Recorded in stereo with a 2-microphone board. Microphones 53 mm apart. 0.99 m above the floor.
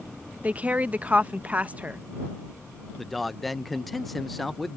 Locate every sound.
0.4 s a woman speaking: 25° right (ahead or behind)
3.0 s a man speaking: centre (ahead or behind)